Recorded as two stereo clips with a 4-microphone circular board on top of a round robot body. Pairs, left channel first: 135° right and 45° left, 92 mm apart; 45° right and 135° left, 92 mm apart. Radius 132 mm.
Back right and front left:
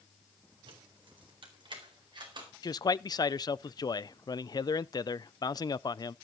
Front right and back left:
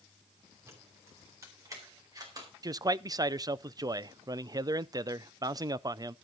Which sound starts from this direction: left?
Keys jangling, at 0.7 s.